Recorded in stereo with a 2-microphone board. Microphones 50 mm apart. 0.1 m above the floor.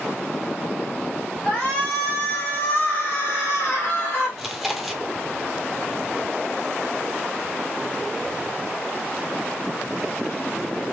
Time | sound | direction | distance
1.4 | a shout | 20° left (ahead or behind) | 1.8 m
4.4 | chewing | 5° right (ahead or behind) | 0.8 m